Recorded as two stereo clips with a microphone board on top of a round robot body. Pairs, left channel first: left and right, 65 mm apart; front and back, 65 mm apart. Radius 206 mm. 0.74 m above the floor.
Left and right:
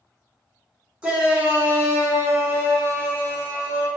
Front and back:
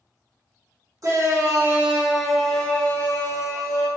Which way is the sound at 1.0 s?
160° right.